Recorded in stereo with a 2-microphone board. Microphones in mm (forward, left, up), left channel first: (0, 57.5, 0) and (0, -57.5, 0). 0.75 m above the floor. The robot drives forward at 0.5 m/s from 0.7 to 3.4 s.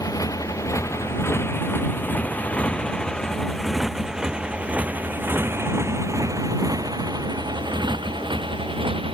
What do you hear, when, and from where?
0.0 s a motorcycle: 30° left (ahead or behind); by 9.1 s 50° right (ahead or behind)